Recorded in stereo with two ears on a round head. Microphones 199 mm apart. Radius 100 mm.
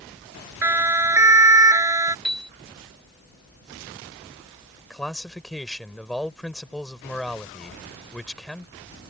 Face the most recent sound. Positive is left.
turn(degrees=0)  # may be behind; listen again after turning